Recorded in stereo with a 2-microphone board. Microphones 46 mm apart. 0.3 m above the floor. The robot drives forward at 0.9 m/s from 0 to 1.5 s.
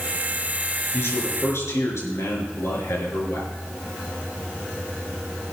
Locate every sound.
0.9 s a man speaking: 65° left (ahead or behind), 4 m; by 3.5 s 70° left (ahead or behind), 4 m